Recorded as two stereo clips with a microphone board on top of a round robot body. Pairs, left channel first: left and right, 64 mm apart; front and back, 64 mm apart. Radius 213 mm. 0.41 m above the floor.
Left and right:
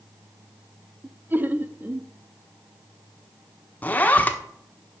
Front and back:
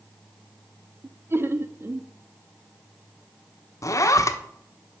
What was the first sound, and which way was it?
Laughter, 140° right.